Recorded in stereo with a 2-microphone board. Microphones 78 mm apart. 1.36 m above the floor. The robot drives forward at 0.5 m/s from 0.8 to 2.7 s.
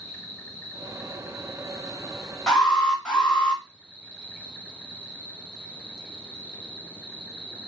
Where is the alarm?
5° left (ahead or behind), 2.0 m.